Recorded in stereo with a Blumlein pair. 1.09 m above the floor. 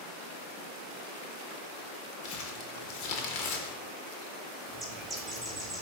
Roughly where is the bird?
Ahead.